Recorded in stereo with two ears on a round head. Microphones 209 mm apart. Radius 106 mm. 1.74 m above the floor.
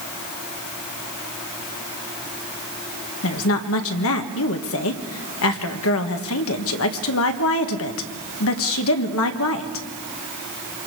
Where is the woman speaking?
65° left (ahead or behind), 1.5 m.